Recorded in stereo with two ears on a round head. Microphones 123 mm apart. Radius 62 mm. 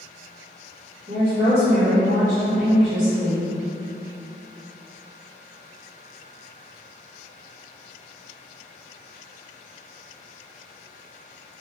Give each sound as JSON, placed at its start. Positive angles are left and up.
{"t": 1.1, "sound": "a woman speaking", "side_deg": -55, "distance_m": 1.4}